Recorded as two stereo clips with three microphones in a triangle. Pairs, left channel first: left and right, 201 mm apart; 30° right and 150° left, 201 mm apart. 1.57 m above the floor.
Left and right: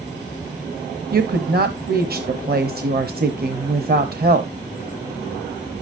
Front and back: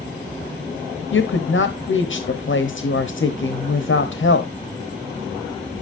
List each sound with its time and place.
1.1 s a woman speaking: 50° right, 0.9 m